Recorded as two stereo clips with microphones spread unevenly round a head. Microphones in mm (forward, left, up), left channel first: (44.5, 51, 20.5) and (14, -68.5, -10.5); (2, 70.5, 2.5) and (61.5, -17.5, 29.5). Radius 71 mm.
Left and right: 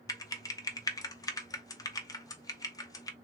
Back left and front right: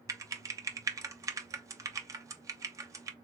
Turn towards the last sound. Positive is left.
turn(degrees=10)